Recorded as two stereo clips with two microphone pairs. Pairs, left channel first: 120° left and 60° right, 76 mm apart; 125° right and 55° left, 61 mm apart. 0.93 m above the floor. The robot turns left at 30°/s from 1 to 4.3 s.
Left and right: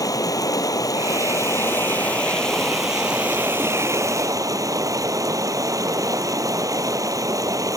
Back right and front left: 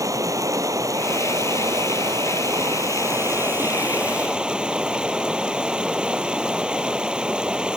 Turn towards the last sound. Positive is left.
turn(degrees=-20)